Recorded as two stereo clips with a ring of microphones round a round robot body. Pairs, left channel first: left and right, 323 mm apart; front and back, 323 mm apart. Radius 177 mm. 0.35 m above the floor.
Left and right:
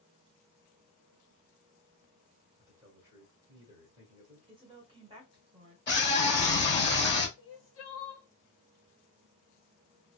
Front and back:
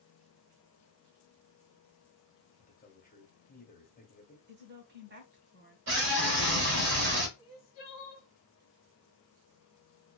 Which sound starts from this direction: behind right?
A woman speaking, at 4.5 s.